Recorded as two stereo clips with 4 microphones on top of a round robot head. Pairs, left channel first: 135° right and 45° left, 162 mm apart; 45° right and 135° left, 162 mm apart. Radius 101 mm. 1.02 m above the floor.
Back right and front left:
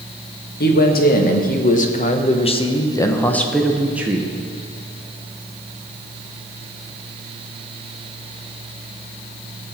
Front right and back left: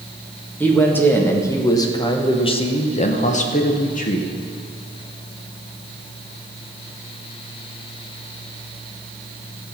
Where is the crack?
No crack in this recording.